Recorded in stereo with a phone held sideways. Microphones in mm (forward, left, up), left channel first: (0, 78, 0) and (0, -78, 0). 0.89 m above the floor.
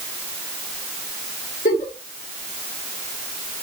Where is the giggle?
60° left (ahead or behind), 1.6 m.